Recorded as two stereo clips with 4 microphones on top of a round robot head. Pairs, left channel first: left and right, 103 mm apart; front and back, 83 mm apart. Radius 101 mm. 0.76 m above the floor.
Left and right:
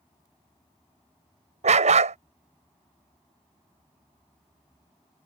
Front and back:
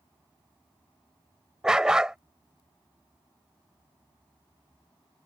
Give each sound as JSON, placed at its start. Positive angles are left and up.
{"t": 1.6, "sound": "a dog barking", "azimuth_deg": -95}